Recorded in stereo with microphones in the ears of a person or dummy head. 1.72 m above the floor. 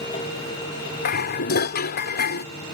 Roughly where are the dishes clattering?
Left.